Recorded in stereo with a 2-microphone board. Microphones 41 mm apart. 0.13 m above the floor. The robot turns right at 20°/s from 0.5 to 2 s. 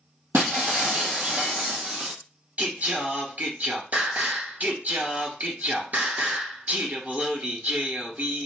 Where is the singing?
50° right (ahead or behind), 1.5 m.